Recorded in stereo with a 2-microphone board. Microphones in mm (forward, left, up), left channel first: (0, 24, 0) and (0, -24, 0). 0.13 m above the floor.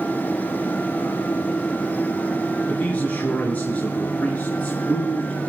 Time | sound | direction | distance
2.7 | a man speaking | 35° left (ahead or behind) | 2.5 m